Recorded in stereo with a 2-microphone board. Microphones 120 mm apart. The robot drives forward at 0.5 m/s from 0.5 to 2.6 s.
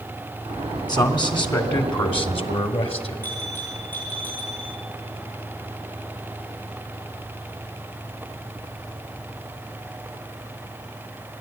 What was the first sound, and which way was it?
A man speaking, 35° left (ahead or behind).